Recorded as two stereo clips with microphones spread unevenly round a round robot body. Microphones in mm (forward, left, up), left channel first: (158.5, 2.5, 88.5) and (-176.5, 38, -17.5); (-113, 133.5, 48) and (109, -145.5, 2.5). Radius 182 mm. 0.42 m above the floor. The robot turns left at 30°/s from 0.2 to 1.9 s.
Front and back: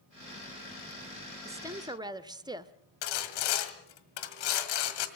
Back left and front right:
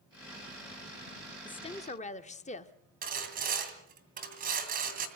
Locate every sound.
1.4 s a woman speaking: 150° right, 0.9 m; by 2.7 s 165° right, 0.9 m
3.0 s sawing: 15° left, 2.5 m